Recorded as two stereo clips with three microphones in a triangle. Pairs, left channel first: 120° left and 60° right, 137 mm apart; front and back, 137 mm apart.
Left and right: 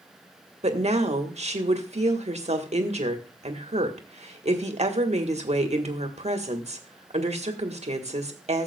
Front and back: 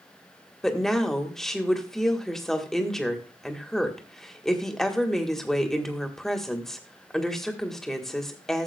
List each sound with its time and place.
0.6 s a woman speaking: 85° right, 1.5 m